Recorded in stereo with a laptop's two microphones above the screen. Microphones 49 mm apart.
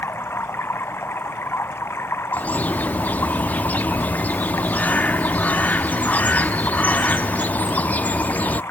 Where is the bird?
35° left (ahead or behind).